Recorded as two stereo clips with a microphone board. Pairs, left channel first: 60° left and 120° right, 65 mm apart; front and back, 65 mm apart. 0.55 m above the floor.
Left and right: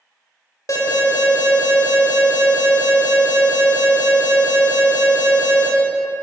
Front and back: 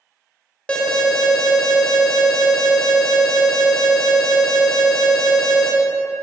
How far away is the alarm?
About 1.7 m.